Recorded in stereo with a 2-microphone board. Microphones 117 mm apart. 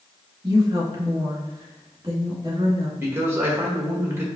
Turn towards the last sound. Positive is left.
turn(degrees=-20)  # may be behind; listen again after turning